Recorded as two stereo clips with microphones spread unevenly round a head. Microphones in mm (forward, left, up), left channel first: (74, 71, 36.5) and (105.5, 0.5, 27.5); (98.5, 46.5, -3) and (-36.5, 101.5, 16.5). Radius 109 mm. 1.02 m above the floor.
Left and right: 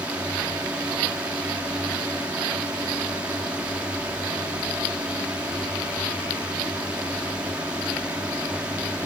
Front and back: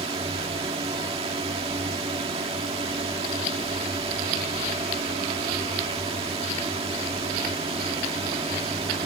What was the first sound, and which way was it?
A drone, 140° right.